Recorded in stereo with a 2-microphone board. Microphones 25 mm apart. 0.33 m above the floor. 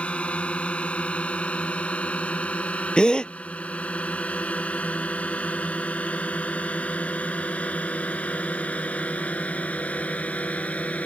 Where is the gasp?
40° left (ahead or behind).